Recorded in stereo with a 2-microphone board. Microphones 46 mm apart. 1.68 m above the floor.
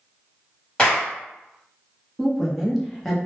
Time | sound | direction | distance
0.8 | a clap | 25° left (ahead or behind) | 1.1 m
2.2 | a woman speaking | 5° left (ahead or behind) | 0.8 m